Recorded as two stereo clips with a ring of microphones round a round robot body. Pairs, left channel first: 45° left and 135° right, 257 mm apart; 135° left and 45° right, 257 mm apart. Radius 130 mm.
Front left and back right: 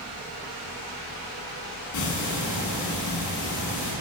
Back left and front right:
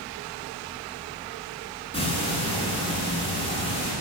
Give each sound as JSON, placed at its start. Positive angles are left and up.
{"t": 1.9, "sound": "ticking", "azimuth_deg": 65, "distance_m": 5.0}